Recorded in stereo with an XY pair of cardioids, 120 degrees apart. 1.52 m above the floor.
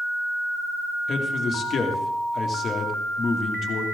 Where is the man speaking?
40° left, 2.5 m.